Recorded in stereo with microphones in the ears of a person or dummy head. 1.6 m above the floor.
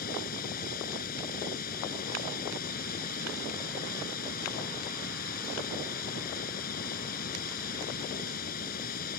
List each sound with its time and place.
0.0 s running water: 50° left (ahead or behind)